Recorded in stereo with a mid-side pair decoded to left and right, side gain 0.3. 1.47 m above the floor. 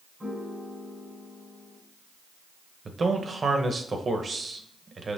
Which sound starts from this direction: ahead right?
A man speaking, at 2.9 s.